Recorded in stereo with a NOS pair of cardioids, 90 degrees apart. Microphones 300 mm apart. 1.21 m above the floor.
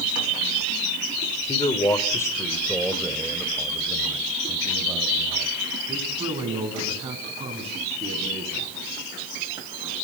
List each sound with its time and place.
1.5 s a man speaking: 20° left, 3.5 m; by 8.6 s 20° right, 11 m